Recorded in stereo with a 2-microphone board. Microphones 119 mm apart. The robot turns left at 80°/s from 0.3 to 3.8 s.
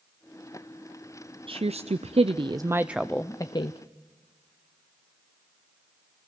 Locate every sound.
1.5 s a woman speaking: 55° right, 0.6 m; by 3.8 s 120° left, 0.6 m